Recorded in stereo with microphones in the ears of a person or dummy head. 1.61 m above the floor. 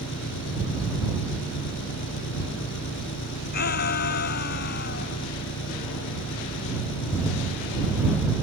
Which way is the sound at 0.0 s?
65° left (ahead or behind).